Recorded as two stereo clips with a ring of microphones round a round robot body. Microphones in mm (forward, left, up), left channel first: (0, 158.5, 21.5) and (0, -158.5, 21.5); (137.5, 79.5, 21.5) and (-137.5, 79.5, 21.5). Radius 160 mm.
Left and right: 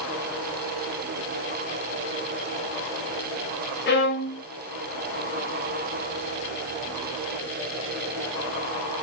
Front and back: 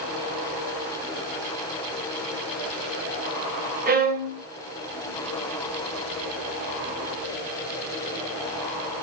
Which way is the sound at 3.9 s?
135° left.